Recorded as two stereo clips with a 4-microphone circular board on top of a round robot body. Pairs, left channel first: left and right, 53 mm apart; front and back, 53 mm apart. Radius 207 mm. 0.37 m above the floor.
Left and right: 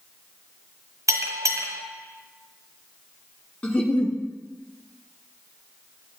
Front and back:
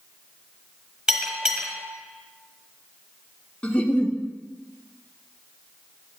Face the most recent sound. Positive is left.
turn(degrees=45)